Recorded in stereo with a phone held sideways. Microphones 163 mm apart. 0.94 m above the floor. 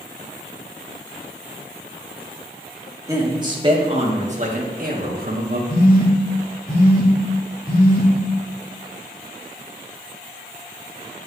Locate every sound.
3.1 s a man speaking: 20° right (ahead or behind), 1.6 m; by 5.6 s 75° right (ahead or behind), 1.4 m
5.7 s a phone buzzing: 70° left (ahead or behind), 2.5 m